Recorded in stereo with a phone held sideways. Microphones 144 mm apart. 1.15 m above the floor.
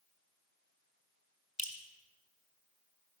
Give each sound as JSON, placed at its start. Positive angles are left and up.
{"t": 1.6, "sound": "dripping", "side_deg": 55, "distance_m": 1.3}